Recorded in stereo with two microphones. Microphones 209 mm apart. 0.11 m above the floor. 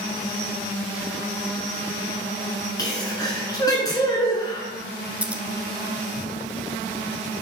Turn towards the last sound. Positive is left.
turn(degrees=-5)  # may be behind; listen again after turning